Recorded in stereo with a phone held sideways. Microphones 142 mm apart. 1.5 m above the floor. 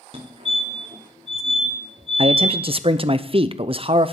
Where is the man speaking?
40° right (ahead or behind), 0.6 m.